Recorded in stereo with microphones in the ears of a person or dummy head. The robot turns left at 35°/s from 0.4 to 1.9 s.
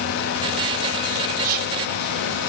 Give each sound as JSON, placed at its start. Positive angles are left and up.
{"t": 1.4, "sound": "whispering", "side_deg": -55, "distance_m": 0.7}